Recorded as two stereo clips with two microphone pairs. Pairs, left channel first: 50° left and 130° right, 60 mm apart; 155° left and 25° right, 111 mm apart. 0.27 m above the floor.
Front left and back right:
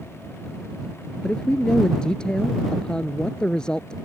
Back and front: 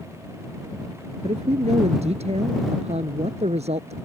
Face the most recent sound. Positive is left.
turn(degrees=-25)